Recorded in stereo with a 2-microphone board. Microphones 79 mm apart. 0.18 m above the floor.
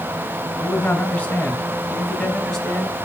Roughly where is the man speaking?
Left.